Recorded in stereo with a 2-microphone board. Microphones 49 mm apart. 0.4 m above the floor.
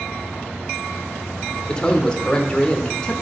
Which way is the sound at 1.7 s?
15° left (ahead or behind).